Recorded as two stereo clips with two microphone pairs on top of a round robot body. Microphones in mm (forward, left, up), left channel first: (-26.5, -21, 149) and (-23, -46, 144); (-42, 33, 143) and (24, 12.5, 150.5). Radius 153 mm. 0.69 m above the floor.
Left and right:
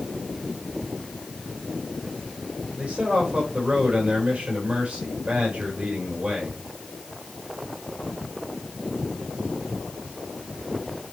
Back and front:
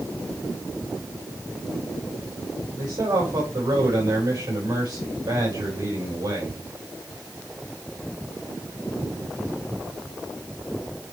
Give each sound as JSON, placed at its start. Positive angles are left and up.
{"t": 2.8, "sound": "a man speaking", "azimuth_deg": -50, "distance_m": 4.0}